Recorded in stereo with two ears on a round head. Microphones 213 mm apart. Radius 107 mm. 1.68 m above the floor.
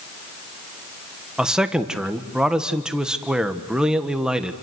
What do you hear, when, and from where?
1.4 s a man speaking: 5° right (ahead or behind), 1.4 m